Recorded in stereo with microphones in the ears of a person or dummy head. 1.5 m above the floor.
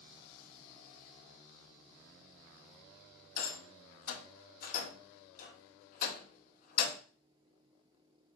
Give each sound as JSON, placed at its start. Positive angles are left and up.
{"t": 3.4, "sound": "a rattle", "side_deg": 50, "distance_m": 0.8}